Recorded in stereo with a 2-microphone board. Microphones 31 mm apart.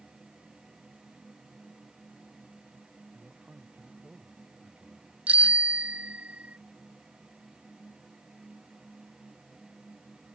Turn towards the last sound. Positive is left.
turn(degrees=-50)  # may be behind; listen again after turning